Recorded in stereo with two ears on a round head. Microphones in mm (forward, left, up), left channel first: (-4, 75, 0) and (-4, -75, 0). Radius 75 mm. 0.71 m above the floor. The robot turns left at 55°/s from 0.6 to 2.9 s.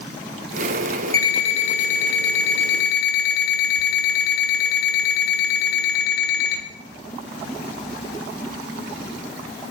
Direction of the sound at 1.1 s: 160° left.